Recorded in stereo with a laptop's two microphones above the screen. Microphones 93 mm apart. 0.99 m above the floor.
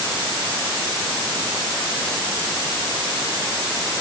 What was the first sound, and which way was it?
Only background noise.